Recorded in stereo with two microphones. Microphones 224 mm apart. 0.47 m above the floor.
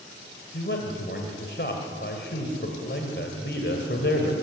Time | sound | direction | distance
0.5 | a man speaking | 55° left (ahead or behind) | 2.5 m